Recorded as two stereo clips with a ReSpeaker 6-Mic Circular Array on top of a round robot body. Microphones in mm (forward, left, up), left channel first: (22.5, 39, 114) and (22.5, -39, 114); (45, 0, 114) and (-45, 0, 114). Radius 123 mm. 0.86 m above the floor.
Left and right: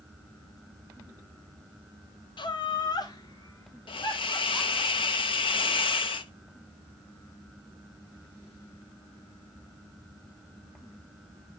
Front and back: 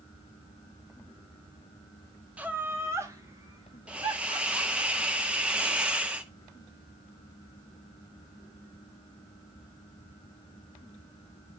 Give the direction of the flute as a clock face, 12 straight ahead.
No flute in this recording.